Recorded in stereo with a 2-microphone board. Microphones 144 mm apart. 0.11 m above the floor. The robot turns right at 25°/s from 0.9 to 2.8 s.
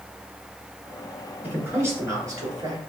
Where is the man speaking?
160° right, 1.8 m; by 2.8 s 125° right, 1.8 m.